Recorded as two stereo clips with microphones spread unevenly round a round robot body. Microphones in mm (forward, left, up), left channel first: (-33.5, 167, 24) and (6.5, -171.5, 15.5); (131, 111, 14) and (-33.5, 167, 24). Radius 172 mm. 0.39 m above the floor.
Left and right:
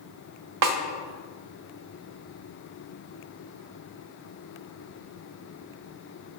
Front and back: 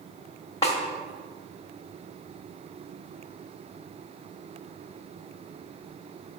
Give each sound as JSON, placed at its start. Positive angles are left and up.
{"t": 0.6, "sound": "a snare drum", "azimuth_deg": -90, "distance_m": 1.1}